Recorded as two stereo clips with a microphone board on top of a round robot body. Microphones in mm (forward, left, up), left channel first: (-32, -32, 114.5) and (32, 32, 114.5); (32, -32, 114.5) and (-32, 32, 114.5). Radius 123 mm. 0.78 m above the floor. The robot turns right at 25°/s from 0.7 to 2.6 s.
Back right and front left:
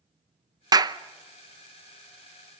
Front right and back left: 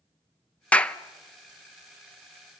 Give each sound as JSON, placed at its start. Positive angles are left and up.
{"t": 0.7, "sound": "a clap", "azimuth_deg": 25, "distance_m": 0.9}